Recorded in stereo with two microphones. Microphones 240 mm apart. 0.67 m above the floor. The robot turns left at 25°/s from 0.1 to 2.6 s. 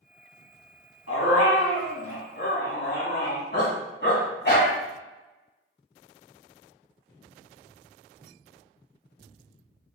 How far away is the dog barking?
About 2 m.